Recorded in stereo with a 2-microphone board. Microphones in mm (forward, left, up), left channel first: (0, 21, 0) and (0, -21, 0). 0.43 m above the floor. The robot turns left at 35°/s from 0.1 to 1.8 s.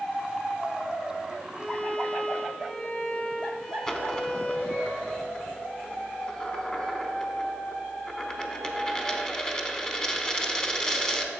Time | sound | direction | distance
1.5 | a violin | 15° left (ahead or behind) | 1.8 m
3.9 | a dropped coin | 20° left (ahead or behind) | 0.8 m